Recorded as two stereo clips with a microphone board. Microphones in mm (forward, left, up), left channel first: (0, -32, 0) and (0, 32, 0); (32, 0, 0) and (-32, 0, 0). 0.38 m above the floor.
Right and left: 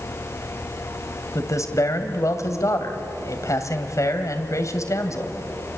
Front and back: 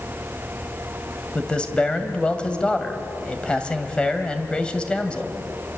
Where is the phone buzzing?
No phone buzzing in this recording.